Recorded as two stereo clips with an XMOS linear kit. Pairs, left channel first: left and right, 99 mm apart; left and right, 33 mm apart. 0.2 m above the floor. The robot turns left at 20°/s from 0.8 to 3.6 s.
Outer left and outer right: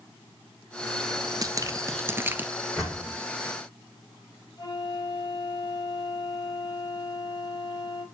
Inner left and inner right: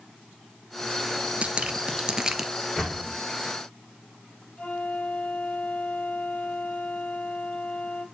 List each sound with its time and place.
1.4 s dripping: 40° right (ahead or behind), 0.9 m; by 2.5 s 15° right (ahead or behind), 0.9 m
2.8 s a door slam: centre (ahead or behind), 7 m; by 3.2 s 5° left (ahead or behind), 7 m
4.6 s a flute: 40° left (ahead or behind), 3.5 m